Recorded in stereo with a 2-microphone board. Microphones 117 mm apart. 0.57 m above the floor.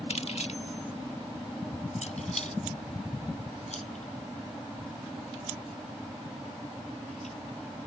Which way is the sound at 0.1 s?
65° left (ahead or behind).